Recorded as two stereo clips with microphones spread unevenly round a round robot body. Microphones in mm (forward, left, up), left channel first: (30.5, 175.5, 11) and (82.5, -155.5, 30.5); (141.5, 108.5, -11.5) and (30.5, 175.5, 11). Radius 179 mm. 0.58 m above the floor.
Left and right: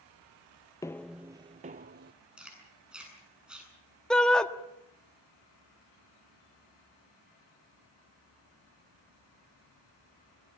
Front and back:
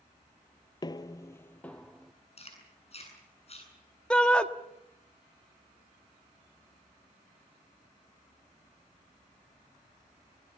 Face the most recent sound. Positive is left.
turn(degrees=20)